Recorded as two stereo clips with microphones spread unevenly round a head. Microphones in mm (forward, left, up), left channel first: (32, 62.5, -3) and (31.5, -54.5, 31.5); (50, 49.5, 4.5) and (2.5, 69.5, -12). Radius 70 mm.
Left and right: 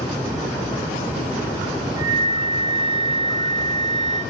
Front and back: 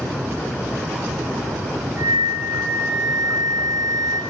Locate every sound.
2.0 s a flute: 60° left, 1.3 m